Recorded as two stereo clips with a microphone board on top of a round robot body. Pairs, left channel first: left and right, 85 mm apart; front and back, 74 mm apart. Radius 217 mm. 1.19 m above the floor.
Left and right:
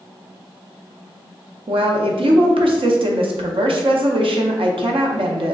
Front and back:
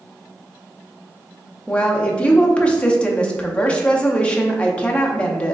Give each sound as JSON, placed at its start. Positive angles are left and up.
{"t": 1.7, "sound": "a woman speaking", "azimuth_deg": -75, "distance_m": 0.6}